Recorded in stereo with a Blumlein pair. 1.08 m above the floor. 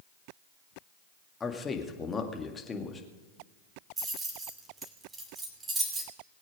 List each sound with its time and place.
1.4 s a man speaking: 15° left, 2 m
4.0 s keys jangling: 15° right, 2.5 m